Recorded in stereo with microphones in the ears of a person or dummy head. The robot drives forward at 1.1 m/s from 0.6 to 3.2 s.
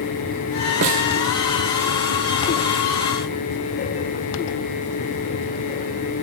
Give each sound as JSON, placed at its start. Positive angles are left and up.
{"t": 0.8, "sound": "a snare drum", "side_deg": -50, "distance_m": 0.7}